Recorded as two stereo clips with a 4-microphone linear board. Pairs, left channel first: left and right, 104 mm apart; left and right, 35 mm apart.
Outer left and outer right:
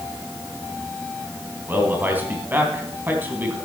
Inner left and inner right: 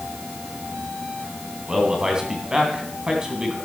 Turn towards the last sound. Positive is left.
turn(degrees=-20)  # may be behind; listen again after turning